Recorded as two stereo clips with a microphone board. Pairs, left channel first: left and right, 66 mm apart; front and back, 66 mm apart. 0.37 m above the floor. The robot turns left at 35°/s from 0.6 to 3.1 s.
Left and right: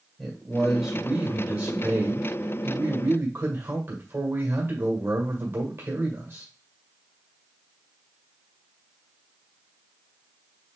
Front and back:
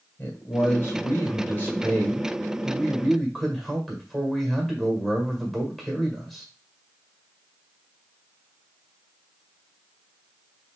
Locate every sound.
0.2 s a man speaking: straight ahead, 1.5 m; by 6.5 s 90° right, 1.5 m